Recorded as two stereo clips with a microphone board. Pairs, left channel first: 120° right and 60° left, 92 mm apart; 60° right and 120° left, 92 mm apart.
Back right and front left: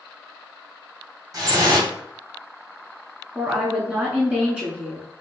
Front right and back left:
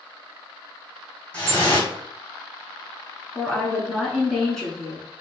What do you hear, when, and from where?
1.3 s dripping: 15° left, 1.9 m
3.4 s a woman speaking: 10° left, 1.0 m